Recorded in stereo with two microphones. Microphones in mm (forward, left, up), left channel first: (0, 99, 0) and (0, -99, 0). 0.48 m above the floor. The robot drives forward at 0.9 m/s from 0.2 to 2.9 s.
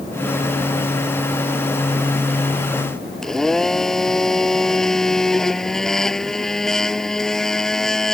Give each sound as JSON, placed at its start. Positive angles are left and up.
{"t": 3.2, "sound": "a blender", "side_deg": 0}